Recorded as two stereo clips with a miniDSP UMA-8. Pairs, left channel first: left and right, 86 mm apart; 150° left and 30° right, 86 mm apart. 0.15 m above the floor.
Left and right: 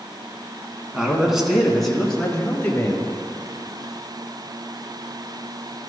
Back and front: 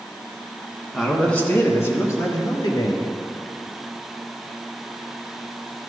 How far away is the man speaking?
About 1.3 m.